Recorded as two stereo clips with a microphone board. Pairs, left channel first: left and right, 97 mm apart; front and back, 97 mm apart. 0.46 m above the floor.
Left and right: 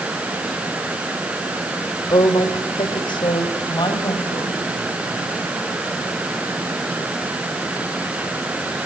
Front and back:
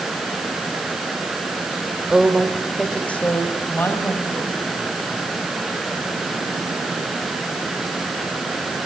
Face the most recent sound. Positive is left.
turn(degrees=60)